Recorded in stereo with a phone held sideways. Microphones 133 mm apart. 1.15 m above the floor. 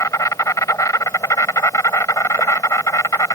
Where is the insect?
25° left (ahead or behind).